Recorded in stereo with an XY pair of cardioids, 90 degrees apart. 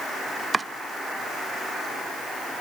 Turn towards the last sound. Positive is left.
turn(degrees=-35)